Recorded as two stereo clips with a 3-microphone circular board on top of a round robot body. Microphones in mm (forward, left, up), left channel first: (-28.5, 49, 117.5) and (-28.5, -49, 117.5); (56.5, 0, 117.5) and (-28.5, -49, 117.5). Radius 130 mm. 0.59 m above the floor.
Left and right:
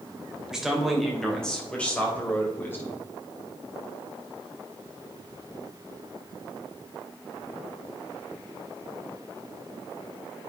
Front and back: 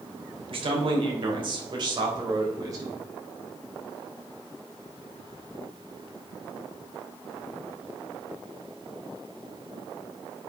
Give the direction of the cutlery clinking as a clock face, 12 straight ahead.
I don't hear cutlery clinking.